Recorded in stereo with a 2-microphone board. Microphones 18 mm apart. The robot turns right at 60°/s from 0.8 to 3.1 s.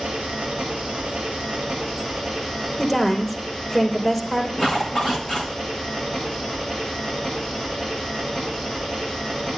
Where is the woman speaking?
10° left (ahead or behind), 3.5 m; by 4.5 s 25° left (ahead or behind), 3.5 m.